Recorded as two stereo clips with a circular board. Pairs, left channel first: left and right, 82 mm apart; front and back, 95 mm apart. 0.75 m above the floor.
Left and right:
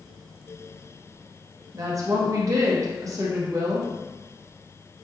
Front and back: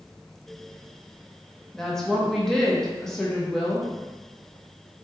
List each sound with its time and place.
1.7 s a woman speaking: 85° right, 0.6 m